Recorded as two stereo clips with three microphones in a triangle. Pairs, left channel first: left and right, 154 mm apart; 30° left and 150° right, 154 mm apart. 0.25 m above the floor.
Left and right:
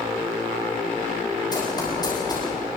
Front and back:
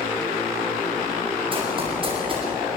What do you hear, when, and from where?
1.5 s running footsteps: 155° left, 8 m